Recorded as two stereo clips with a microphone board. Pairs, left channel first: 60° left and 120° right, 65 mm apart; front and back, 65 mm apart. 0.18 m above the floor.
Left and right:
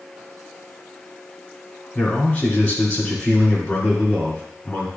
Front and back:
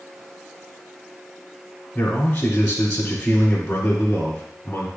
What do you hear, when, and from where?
1.9 s a man speaking: 20° left, 1.5 m